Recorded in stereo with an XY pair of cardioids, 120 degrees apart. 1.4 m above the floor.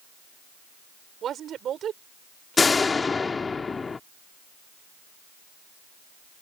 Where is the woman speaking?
55° right.